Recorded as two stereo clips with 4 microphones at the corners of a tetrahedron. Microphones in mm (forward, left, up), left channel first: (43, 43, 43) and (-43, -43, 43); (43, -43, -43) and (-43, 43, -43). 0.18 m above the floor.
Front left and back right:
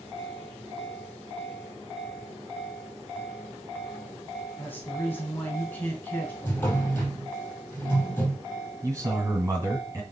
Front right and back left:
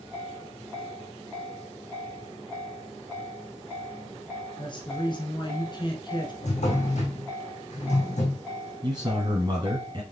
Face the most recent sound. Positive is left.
turn(degrees=165)